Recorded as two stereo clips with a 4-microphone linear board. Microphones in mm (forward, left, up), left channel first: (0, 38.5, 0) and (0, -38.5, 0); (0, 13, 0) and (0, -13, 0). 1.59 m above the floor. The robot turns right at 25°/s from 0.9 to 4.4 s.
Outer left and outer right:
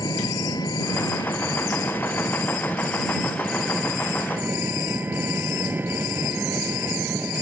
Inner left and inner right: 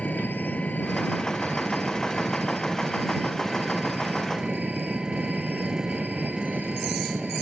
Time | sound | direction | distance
0.0 | an engine running | 120° left | ?